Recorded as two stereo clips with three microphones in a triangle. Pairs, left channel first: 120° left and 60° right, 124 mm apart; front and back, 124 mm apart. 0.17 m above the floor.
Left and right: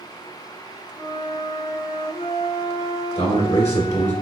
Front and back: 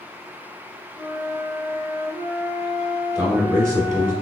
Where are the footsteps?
I don't hear footsteps.